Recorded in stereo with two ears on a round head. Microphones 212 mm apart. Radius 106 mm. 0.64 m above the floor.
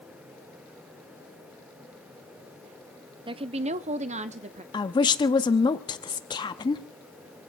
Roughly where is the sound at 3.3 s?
Right.